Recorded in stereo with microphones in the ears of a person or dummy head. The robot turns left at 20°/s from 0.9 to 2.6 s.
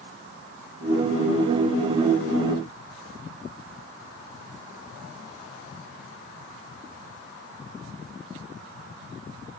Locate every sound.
Only background noise.